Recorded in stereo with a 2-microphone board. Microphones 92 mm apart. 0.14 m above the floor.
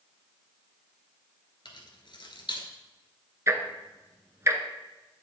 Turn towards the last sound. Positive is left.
turn(degrees=-30)  # may be behind; listen again after turning